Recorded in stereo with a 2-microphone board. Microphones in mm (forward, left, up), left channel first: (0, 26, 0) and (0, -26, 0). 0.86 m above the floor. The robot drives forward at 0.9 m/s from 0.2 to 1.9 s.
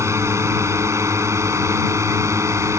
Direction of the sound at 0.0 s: 65° right (ahead or behind).